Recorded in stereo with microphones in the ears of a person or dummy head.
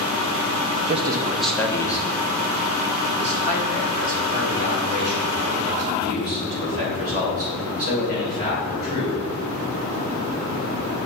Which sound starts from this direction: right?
A man speaking, at 0.9 s.